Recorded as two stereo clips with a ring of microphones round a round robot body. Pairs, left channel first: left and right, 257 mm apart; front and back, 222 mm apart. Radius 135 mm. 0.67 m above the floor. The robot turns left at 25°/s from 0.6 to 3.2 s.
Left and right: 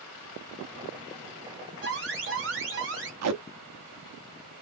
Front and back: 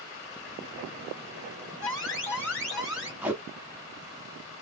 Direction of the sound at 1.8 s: 65° right.